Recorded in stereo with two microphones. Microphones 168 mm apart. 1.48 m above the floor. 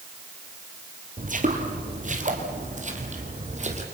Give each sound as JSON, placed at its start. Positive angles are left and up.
{"t": 1.2, "sound": "footsteps", "side_deg": -50, "distance_m": 2.5}